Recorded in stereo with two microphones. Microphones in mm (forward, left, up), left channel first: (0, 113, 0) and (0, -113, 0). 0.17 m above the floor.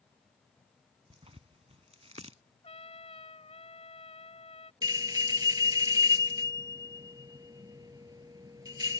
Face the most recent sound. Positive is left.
turn(degrees=-20)  # may be behind; listen again after turning